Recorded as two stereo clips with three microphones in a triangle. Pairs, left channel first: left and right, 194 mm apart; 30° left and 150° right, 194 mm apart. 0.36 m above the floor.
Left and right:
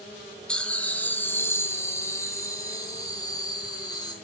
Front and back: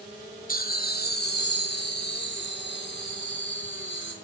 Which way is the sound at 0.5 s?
5° left.